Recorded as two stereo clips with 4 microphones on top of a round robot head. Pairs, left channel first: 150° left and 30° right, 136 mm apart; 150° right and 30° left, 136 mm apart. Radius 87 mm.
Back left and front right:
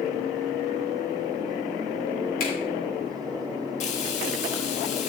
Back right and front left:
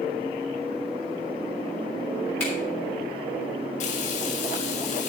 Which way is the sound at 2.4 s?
130° left.